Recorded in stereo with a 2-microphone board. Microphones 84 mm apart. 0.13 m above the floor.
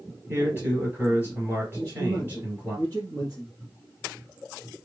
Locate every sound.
0.3 s a man speaking: 25° right (ahead or behind), 3 m
1.8 s a man speaking: 35° right (ahead or behind), 1.9 m